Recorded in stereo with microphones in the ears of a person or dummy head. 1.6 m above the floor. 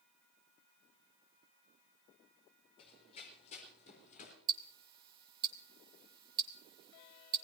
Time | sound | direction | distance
2.8 | running footsteps | 35° left (ahead or behind) | 4 m
4.5 | ticking | 25° right (ahead or behind) | 1.2 m